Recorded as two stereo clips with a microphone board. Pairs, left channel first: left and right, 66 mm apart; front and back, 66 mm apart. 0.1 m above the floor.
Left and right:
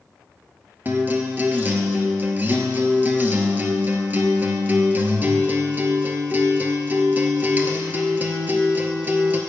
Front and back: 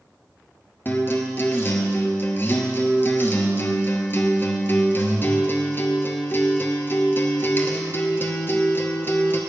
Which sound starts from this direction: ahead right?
A guitar, at 0.8 s.